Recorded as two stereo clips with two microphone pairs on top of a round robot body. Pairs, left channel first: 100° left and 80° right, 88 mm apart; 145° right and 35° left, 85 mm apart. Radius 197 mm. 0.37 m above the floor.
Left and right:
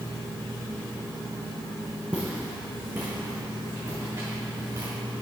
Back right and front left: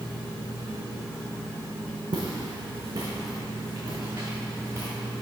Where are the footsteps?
Straight ahead, 1.4 m; by 4.9 s 30° right, 2.5 m.